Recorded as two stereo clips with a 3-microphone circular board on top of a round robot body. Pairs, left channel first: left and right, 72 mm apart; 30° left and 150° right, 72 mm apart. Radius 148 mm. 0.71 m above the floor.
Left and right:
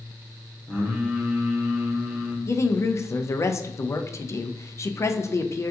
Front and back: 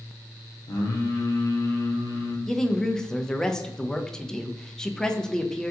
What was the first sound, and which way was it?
Singing, 5° right.